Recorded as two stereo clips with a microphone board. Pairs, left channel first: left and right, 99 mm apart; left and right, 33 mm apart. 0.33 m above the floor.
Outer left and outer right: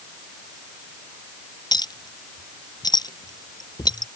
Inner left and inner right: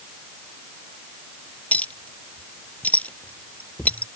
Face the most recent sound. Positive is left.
turn(degrees=45)  # may be behind; listen again after turning